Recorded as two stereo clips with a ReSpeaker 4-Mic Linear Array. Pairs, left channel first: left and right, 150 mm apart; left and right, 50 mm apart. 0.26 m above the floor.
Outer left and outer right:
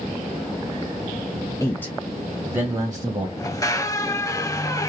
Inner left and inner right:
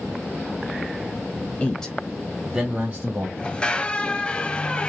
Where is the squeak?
20° left (ahead or behind), 0.6 m.